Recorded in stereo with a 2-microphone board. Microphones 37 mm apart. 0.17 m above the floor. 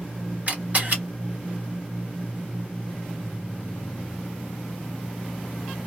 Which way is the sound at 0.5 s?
45° right (ahead or behind).